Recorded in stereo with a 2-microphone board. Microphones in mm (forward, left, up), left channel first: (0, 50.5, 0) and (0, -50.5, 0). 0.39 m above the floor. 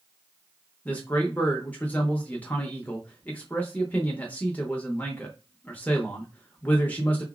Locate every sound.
0.8 s a man speaking: 15° left (ahead or behind), 0.8 m